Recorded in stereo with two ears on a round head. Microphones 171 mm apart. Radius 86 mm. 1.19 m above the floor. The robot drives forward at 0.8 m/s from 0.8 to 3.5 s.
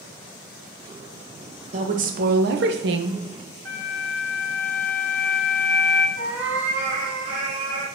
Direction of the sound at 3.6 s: 10° left (ahead or behind).